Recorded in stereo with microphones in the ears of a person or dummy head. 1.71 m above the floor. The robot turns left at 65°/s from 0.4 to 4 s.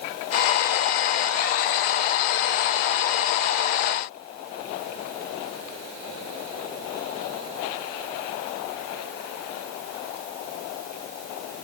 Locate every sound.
Only background noise.